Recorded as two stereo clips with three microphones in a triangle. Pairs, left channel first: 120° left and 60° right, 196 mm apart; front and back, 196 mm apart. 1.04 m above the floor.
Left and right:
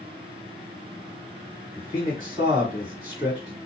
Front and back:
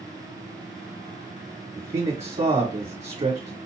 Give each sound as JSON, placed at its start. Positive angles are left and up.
{"t": 1.8, "sound": "a man speaking", "azimuth_deg": -130, "distance_m": 1.6}